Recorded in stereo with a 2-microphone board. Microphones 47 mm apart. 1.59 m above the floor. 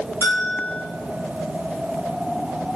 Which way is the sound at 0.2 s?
60° left (ahead or behind).